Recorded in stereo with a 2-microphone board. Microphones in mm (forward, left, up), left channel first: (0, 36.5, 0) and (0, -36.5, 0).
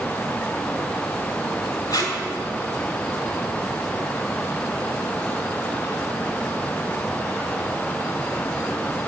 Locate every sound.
1.9 s tape being pulled: 55° left (ahead or behind), 1.3 m